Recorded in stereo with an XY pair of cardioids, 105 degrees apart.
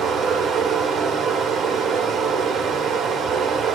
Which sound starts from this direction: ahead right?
Running water, at 0.0 s.